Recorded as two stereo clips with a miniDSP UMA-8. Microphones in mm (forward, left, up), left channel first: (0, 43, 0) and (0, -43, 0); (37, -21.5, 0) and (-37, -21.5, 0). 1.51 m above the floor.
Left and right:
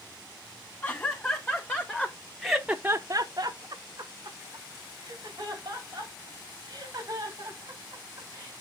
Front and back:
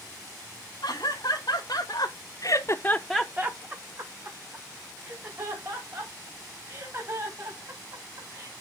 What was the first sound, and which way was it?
Laughter, 30° left.